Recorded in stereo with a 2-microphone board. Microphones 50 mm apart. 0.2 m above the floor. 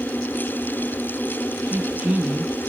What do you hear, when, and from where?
1.7 s a woman speaking: 25° right (ahead or behind), 1.0 m